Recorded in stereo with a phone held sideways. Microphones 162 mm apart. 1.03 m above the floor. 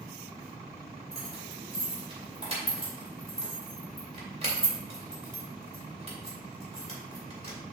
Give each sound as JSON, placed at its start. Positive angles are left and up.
{"t": 1.1, "sound": "keys jangling", "side_deg": -40, "distance_m": 2.5}